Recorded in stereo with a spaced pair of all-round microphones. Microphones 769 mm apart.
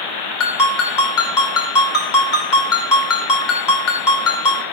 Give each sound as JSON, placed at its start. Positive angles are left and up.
{"t": 0.4, "sound": "a ringtone", "side_deg": 70, "distance_m": 2.5}